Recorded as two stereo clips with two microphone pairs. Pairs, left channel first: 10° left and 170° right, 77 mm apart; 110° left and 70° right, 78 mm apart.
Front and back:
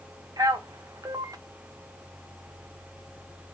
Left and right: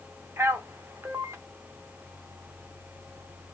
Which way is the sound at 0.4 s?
130° right.